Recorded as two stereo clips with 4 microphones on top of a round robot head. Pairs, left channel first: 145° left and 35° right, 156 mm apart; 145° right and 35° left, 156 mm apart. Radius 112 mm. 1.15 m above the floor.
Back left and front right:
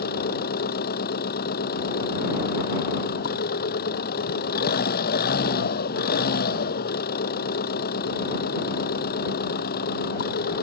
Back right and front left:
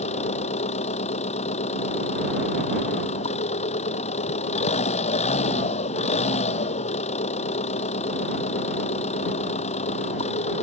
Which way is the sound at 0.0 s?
170° left.